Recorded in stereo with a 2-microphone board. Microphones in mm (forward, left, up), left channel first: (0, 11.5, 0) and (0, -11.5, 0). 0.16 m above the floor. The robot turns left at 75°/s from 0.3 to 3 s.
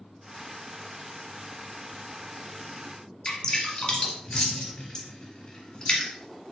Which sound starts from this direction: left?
Dripping, at 3.2 s.